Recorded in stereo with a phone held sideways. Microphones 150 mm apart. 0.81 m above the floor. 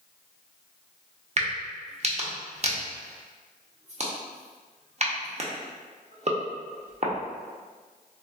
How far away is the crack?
About 0.5 m.